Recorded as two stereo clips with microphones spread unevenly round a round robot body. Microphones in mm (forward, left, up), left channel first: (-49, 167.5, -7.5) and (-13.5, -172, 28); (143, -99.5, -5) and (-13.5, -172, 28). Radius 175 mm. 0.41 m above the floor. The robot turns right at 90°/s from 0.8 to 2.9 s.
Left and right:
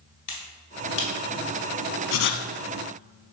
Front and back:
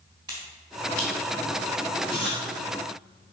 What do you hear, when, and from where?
0.3 s a finger snap: 125° left, 2.5 m; by 1.1 s 150° left, 2.5 m
2.1 s writing: 140° left, 0.8 m; by 2.5 s 175° left, 0.8 m